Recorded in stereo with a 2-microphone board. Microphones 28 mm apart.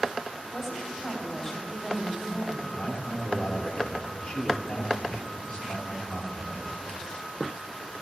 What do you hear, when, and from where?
0.5 s a woman speaking: 20° left (ahead or behind), 3.5 m
2.7 s a man speaking: 50° left (ahead or behind), 1.3 m